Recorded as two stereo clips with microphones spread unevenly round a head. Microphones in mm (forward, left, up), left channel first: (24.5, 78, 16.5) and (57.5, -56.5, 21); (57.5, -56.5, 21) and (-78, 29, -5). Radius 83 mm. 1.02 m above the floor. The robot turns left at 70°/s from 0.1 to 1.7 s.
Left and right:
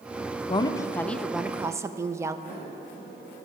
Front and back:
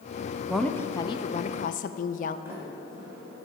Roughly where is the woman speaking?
Left.